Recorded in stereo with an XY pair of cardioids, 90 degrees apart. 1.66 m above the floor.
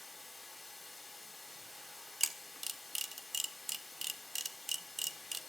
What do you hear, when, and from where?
0.0 s running water: 10° left, 4.5 m
2.2 s a camera shutter: 25° right, 0.9 m